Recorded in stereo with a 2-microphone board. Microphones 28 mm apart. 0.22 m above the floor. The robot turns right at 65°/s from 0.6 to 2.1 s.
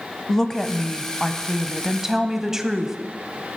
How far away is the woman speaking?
About 1.0 m.